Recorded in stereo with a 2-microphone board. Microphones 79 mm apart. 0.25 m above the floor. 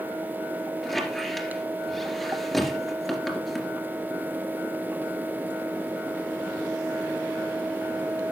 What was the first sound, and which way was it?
A squeak, centre (ahead or behind).